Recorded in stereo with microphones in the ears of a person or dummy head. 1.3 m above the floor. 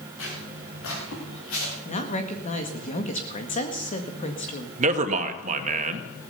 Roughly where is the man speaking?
Right.